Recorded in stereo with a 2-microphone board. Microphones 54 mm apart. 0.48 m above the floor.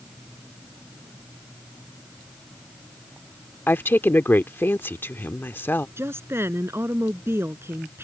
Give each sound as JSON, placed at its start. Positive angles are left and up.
{"t": 3.7, "sound": "a woman speaking", "side_deg": 40}
{"t": 6.0, "sound": "a woman speaking", "side_deg": -50}